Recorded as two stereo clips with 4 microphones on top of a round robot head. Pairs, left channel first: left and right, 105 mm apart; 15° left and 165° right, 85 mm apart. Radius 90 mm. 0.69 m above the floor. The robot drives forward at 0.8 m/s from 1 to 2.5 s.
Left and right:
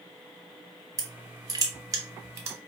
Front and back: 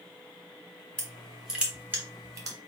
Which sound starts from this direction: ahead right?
Crushing, at 1.0 s.